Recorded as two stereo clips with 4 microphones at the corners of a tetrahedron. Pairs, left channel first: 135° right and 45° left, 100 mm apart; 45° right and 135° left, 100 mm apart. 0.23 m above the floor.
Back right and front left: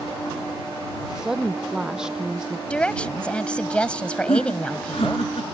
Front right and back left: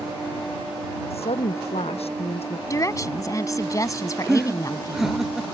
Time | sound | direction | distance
1.1 | a woman speaking | 40° right | ?
2.7 | a woman speaking | 65° right | ?
4.3 | laughter | 140° right | ?